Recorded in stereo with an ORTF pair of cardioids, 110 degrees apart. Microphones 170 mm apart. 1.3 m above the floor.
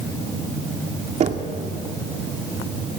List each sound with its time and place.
1.2 s knocking: 40° right, 2 m